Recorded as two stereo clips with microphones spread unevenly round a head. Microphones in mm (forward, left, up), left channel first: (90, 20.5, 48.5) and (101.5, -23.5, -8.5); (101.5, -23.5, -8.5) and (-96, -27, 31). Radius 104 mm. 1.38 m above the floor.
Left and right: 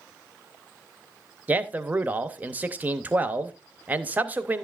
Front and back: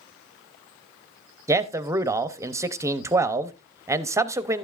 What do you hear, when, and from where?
1.5 s a man speaking: 100° right, 0.7 m